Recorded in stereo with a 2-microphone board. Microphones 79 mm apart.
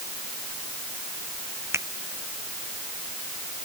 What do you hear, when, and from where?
1.7 s a finger snap: 35° right (ahead or behind)